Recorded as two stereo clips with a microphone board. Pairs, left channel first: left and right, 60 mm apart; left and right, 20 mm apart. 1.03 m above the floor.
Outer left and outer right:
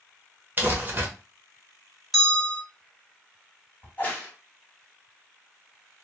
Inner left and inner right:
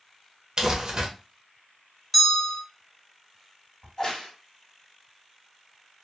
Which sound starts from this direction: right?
Crumpling, at 0.6 s.